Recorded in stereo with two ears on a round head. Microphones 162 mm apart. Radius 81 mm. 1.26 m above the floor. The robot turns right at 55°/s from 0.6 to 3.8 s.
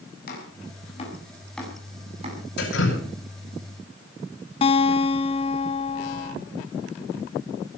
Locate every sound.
0.3 s chopping: 55° left (ahead or behind), 7.5 m; by 2.4 s 40° right (ahead or behind), 7.5 m
2.6 s dripping: 60° left (ahead or behind), 8 m; by 3.0 s 85° left, 8 m
4.6 s a guitar: 30° left (ahead or behind), 1.0 m